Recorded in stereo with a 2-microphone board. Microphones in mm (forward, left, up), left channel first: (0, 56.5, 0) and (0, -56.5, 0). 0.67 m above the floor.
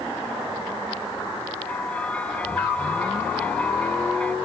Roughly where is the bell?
Centre.